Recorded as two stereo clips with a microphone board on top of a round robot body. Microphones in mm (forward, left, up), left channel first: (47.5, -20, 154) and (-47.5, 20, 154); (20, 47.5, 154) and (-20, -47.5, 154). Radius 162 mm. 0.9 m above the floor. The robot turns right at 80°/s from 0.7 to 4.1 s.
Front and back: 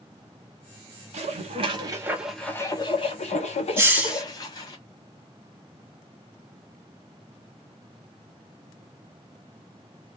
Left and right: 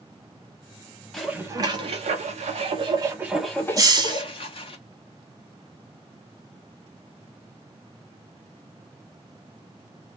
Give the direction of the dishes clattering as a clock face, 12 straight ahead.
7 o'clock.